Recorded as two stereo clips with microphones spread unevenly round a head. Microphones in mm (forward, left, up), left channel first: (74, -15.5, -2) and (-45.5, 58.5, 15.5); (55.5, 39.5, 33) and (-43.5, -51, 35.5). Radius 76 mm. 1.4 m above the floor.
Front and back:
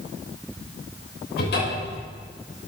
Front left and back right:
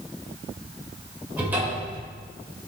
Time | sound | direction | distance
1.4 | a cupboard door | 60° right | 5 m